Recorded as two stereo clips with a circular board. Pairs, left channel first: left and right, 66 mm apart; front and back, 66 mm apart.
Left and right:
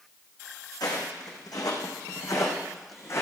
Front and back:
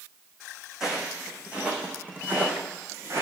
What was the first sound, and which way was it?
Footsteps, 100° left.